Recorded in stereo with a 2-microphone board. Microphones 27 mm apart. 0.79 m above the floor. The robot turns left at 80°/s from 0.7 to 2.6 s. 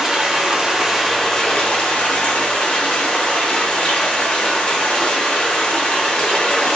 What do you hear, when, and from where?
0.0 s running water: 155° right, 0.8 m; by 6.8 s 55° left, 0.8 m